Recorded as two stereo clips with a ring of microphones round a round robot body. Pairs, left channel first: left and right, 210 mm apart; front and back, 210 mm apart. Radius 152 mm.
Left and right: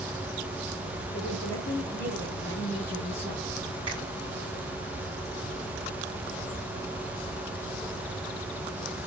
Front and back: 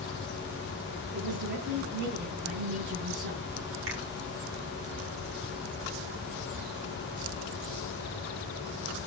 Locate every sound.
1.1 s a woman speaking: 150° left, 8.5 m
3.9 s a finger snap: 160° right, 3.5 m